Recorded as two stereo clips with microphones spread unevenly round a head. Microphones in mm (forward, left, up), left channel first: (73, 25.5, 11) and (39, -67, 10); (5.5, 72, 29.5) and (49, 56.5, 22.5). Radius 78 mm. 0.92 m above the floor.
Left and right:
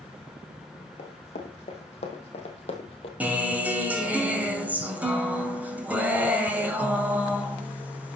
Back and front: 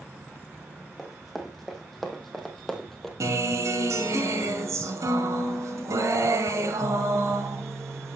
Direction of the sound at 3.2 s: 35° right.